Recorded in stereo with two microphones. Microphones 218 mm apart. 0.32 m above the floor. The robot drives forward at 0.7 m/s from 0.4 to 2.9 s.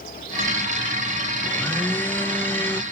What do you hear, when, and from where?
1.4 s a blender: 10° left (ahead or behind)